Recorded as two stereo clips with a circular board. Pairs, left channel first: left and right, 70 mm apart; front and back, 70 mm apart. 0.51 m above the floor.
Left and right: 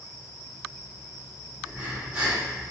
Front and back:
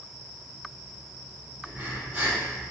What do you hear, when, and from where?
1.6 s breathing: 155° right, 1.3 m